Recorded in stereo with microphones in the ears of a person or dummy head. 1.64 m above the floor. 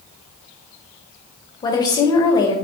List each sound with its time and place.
1.6 s a woman speaking: 25° left (ahead or behind), 0.6 m